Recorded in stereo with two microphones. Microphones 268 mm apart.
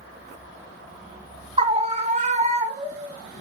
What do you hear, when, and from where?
1.6 s a scream: 20° right (ahead or behind), 1.1 m; by 3.1 s 25° right (ahead or behind), 1.9 m